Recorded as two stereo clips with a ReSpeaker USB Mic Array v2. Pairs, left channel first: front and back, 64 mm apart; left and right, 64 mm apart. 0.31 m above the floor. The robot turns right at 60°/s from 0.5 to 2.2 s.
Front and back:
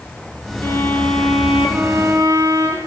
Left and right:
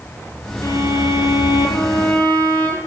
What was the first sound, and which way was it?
A violin, 50° left.